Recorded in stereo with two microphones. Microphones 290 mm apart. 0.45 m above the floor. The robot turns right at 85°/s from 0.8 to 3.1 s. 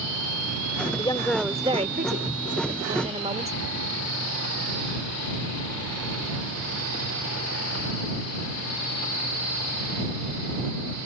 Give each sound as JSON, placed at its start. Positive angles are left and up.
{"t": 1.0, "sound": "a woman speaking", "azimuth_deg": 145}